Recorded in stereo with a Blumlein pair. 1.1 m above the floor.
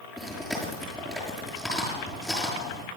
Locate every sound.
0.2 s chewing: straight ahead, 7.5 m